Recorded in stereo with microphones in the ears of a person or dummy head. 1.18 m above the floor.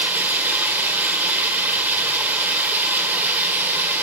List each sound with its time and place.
0.0 s running water: 10° right (ahead or behind), 1.8 m